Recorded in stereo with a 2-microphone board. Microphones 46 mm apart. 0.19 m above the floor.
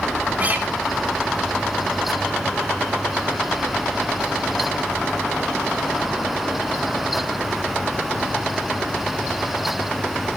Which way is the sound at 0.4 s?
35° right (ahead or behind).